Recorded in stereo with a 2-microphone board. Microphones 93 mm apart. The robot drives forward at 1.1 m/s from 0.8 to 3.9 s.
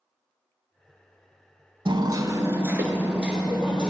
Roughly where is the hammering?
Right.